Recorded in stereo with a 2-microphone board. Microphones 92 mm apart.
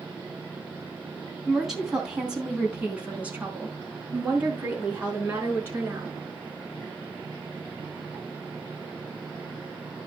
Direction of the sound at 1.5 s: Centre (ahead or behind).